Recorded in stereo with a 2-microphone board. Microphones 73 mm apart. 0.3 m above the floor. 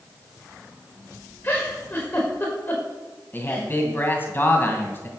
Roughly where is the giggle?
Left.